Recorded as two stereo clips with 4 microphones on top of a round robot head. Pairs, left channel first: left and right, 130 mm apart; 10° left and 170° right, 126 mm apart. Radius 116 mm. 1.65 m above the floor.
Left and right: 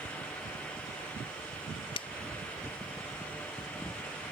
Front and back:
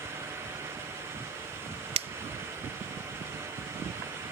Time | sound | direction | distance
1.9 | a finger snap | 150° left | ?